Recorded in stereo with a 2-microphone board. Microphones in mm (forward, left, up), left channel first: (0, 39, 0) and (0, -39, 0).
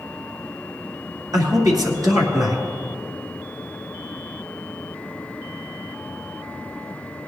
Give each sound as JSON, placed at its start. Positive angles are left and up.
{"t": 1.3, "sound": "a man speaking", "side_deg": -50, "distance_m": 2.5}